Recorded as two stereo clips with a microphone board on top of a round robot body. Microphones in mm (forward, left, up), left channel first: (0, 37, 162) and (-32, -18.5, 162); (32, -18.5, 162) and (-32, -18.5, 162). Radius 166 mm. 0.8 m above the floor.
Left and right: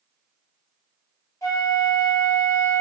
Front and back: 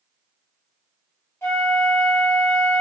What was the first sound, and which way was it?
A flute, 45° left.